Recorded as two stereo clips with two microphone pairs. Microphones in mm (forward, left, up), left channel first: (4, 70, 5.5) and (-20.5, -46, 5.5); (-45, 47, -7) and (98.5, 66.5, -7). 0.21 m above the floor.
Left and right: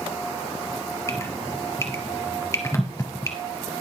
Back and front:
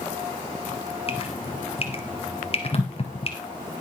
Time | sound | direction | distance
1.1 | dripping | 140° left | 2.5 m